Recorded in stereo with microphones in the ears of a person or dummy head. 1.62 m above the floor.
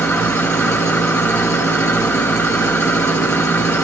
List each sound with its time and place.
0.0 s an engine running: 10° left (ahead or behind), 1.0 m